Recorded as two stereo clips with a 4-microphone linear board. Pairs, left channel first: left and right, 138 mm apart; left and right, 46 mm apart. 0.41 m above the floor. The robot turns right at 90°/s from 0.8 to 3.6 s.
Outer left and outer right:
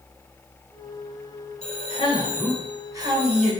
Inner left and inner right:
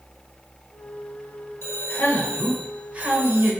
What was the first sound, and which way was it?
A man speaking, 90° left.